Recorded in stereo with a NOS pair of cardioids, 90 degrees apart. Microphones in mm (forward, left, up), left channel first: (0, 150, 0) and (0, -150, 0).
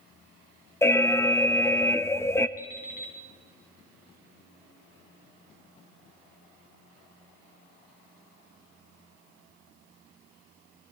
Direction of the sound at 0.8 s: 10° left.